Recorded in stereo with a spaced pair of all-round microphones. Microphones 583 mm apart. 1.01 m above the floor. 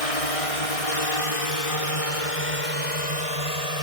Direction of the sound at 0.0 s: 70° left (ahead or behind).